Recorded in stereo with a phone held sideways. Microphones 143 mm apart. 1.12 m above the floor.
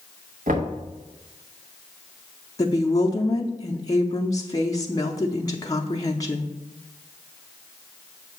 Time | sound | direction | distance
0.5 | knocking | 70° right (ahead or behind) | 1.2 m
2.6 | a woman speaking | 25° left (ahead or behind) | 0.6 m